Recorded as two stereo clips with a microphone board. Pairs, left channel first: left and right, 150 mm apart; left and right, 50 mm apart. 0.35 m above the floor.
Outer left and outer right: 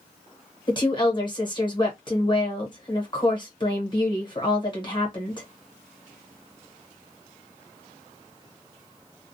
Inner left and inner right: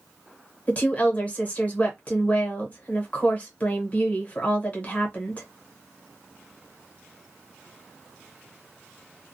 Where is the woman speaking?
30° left (ahead or behind), 1.0 m.